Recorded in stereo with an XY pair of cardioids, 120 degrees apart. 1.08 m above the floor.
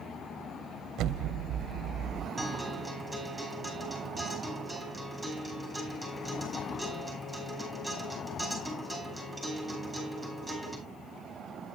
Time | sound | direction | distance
1.0 | an explosion | 70° right | 0.5 m
2.4 | a guitar | 5° left | 5 m